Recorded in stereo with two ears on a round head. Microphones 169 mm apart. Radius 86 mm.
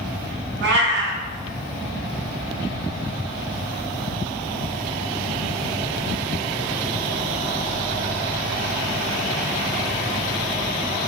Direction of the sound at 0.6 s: 65° right (ahead or behind).